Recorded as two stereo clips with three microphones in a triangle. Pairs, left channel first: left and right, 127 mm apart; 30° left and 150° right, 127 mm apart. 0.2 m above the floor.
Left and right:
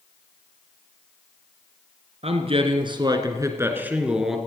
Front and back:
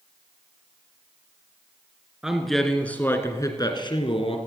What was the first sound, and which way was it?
A man speaking, 65° right.